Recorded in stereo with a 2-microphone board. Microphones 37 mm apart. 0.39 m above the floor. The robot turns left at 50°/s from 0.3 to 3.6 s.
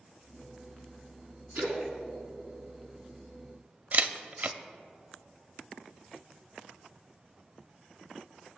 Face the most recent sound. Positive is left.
turn(degrees=-50)  # may be behind; listen again after turning